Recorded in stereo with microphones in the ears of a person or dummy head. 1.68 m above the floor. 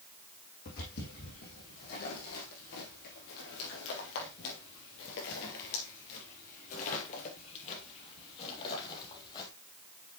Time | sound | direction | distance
0.7 | footsteps | 50° left (ahead or behind) | 4.5 m